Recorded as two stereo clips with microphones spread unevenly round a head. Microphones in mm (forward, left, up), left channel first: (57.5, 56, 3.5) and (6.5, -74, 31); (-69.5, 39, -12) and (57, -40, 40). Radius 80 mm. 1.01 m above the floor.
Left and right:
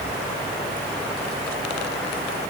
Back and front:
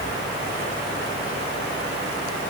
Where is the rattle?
No rattle in this recording.